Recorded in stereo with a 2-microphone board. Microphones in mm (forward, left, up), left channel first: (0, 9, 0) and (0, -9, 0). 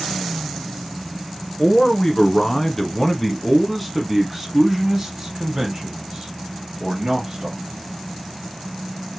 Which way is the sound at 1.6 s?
30° left (ahead or behind).